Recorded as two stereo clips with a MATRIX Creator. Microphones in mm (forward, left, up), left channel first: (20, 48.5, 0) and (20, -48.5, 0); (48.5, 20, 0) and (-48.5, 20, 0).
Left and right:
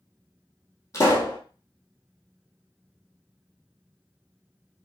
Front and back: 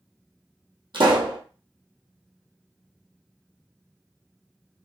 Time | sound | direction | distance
0.9 | a pop | 145° left | 1.5 m